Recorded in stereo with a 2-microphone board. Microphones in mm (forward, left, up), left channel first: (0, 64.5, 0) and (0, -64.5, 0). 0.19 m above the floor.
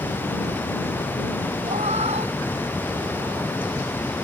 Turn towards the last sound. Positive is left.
turn(degrees=-45)  # may be behind; listen again after turning